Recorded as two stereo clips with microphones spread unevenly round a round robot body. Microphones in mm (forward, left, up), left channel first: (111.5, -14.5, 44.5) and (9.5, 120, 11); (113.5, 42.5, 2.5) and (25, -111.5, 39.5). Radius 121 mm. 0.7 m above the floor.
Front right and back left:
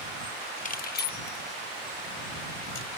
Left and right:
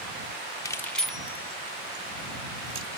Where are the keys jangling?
5° right; by 3.0 s 60° right.